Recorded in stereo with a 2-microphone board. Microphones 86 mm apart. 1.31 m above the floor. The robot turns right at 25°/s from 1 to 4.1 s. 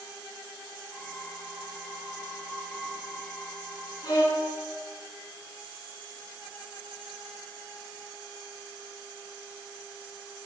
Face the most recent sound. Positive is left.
turn(degrees=45)  # may be behind; listen again after turning